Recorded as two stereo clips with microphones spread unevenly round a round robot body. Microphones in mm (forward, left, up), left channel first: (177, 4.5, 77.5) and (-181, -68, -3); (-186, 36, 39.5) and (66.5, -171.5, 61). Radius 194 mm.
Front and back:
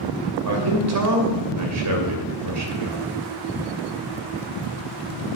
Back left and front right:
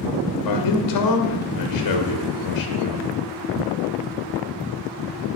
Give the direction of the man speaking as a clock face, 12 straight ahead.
7 o'clock.